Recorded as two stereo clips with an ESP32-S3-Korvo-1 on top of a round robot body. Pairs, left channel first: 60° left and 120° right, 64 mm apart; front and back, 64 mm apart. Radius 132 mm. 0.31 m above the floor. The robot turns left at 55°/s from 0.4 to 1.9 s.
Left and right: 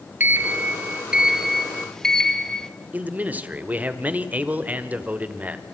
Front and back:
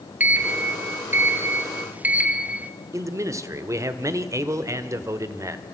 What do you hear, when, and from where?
0.2 s a sliding door: 140° right, 1.4 m; by 2.7 s 135° left, 1.4 m
2.9 s a man speaking: straight behind, 1.6 m